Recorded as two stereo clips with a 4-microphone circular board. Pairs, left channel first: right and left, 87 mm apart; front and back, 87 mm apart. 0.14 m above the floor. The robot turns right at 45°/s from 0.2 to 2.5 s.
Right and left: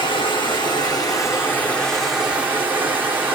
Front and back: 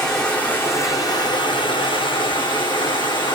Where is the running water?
80° right, 2.5 m; by 3.4 s 20° left, 2.5 m.